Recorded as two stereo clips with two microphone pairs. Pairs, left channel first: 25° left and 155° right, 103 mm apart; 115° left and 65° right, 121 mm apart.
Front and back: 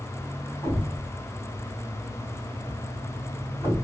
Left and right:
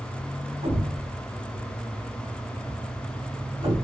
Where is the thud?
40° right, 2.5 m.